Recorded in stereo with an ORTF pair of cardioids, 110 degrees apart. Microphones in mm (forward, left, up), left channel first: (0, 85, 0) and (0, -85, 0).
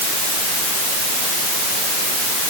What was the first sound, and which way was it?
Only background noise.